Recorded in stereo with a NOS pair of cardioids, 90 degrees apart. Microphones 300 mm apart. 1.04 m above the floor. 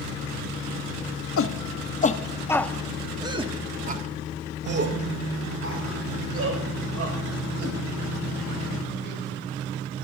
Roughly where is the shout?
Ahead left.